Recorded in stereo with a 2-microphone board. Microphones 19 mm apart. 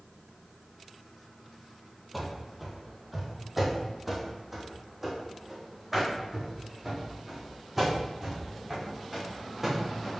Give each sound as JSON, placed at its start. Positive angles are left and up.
{"t": 2.1, "sound": "running footsteps", "side_deg": 0, "distance_m": 2.0}